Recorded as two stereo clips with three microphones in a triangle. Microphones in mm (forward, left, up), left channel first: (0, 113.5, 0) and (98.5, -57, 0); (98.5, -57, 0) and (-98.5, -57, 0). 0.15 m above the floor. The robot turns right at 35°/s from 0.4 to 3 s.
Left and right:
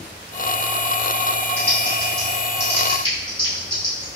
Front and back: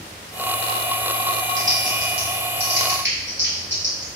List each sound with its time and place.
1.6 s typing on a keyboard: 135° left, 1.9 m; by 4.2 s 175° right, 1.9 m